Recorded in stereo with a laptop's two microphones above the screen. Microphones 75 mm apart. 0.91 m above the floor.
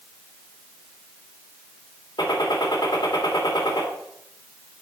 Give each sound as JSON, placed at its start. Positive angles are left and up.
{"t": 2.2, "sound": "a gunshot", "side_deg": 75, "distance_m": 2.0}